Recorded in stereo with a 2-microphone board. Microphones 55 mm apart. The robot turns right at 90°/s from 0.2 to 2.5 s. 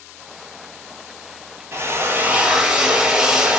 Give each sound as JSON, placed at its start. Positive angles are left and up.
{"t": 1.7, "sound": "a drill", "azimuth_deg": -90, "distance_m": 0.6}